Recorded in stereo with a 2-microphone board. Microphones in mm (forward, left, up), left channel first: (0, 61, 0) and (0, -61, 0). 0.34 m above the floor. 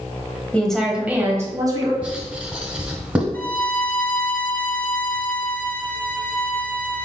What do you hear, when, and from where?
0.5 s a woman speaking: 10° left (ahead or behind), 1.5 m; by 1.9 s 35° right (ahead or behind), 1.9 m
2.0 s writing: 10° right (ahead or behind), 1.4 m
3.3 s a violin: 15° left (ahead or behind), 0.8 m